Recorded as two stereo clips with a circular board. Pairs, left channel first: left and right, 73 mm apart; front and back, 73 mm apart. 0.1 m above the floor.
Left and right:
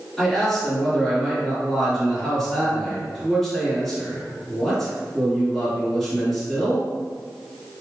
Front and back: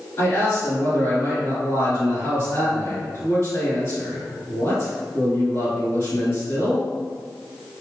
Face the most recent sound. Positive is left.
turn(degrees=0)